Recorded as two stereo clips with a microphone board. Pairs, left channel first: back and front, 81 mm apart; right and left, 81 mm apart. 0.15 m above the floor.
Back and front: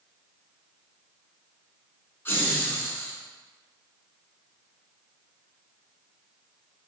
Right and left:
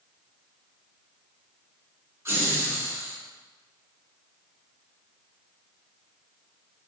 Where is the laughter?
130° left, 1.3 m.